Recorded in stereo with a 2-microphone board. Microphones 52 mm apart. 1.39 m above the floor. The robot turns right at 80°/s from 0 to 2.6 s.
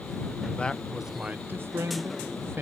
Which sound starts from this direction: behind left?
A man speaking, at 0.6 s.